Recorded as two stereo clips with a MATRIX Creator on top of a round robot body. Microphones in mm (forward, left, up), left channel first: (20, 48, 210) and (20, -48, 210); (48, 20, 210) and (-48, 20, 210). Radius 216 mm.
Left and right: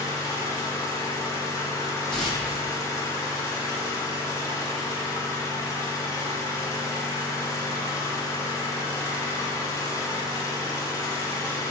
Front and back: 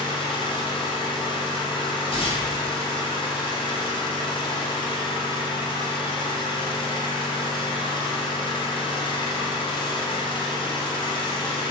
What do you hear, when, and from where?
0.0 s an engine running: 30° left, 0.8 m
2.1 s tearing paper: 5° left, 1.2 m